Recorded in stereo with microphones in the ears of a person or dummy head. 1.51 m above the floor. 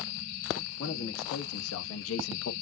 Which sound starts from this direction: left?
A man speaking, at 0.8 s.